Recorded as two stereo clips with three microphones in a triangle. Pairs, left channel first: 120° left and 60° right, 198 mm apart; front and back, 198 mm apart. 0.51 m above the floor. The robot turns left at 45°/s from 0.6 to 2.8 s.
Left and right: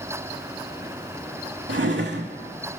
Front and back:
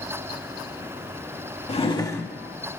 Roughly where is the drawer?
Ahead right.